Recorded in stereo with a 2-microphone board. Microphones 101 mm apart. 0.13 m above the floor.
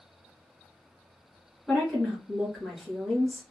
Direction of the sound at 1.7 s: 15° left (ahead or behind).